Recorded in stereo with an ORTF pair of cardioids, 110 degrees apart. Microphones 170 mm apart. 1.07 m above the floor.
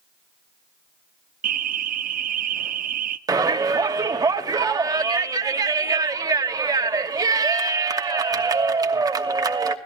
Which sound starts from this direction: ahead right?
An alarm, at 1.4 s.